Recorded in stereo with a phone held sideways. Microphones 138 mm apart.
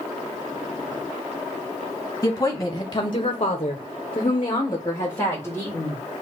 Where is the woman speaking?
20° left (ahead or behind), 1.2 m.